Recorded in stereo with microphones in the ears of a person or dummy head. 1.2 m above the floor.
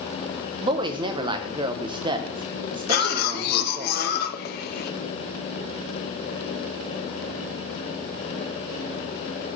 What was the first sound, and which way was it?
A woman speaking, 20° right (ahead or behind).